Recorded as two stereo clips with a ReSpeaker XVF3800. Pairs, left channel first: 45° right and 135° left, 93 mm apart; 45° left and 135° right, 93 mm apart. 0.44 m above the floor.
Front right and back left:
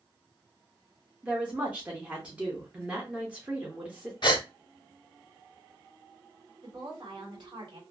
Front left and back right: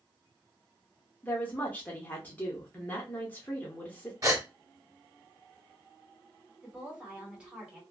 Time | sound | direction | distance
1.2 | a woman speaking | 80° left | 0.7 m
4.2 | a gasp | 80° right | 0.6 m
6.6 | a woman speaking | 150° left | 1.5 m